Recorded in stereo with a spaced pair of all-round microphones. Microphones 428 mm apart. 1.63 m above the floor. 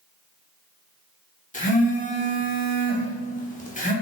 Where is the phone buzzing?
20° left (ahead or behind), 0.7 m.